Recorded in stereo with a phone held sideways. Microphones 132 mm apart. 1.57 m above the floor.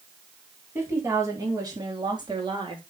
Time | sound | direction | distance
0.8 | a woman speaking | 20° right (ahead or behind) | 4 m